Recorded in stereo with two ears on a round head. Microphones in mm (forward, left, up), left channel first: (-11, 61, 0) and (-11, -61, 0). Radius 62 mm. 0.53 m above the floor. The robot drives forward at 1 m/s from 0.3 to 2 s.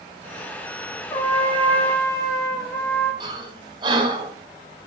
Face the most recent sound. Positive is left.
turn(degrees=-35)  # may be behind; listen again after turning